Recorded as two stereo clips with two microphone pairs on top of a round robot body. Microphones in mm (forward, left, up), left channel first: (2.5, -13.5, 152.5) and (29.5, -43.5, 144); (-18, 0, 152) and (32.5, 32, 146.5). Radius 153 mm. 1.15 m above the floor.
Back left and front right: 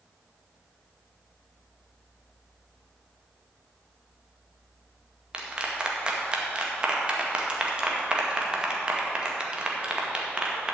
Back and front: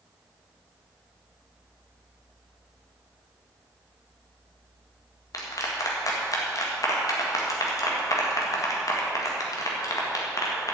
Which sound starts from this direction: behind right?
A clap, at 5.3 s.